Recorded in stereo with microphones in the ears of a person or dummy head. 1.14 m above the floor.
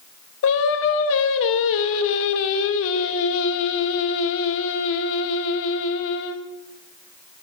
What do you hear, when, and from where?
0.4 s singing: 70° left (ahead or behind), 0.7 m